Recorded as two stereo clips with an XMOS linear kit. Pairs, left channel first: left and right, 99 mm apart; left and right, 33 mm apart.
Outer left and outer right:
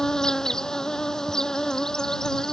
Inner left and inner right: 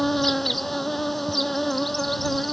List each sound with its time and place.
0.0 s an insect: 5° left (ahead or behind)